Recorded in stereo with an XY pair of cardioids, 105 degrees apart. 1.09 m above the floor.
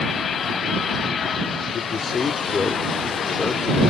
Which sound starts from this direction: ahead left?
A man speaking, at 1.7 s.